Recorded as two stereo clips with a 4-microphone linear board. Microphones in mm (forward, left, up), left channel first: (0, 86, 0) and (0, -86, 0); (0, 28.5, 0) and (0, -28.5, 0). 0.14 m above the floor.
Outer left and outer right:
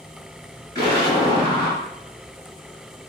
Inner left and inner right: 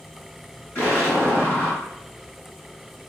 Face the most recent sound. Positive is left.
turn(degrees=20)  # may be behind; listen again after turning